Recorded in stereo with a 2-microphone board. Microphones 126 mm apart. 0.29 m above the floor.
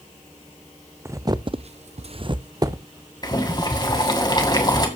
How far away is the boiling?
About 2.5 m.